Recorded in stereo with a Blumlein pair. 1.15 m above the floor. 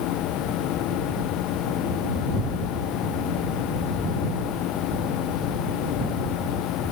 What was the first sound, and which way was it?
A machine running, 35° left.